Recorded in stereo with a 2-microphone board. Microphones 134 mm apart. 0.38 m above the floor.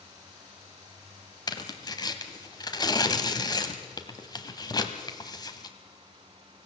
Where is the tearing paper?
30° left (ahead or behind), 1.4 m.